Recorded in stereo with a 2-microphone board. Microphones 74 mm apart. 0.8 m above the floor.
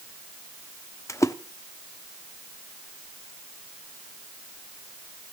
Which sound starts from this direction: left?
A splash, at 1.1 s.